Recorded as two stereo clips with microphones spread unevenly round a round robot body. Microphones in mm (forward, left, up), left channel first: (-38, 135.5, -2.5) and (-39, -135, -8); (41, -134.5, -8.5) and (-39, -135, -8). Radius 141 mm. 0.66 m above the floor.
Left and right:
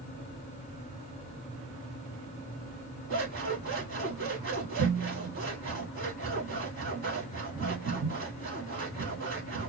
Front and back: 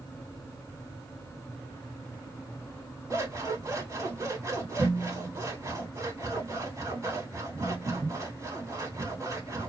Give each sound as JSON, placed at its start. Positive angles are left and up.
{"t": 3.1, "sound": "scissors", "azimuth_deg": -130, "distance_m": 2.5}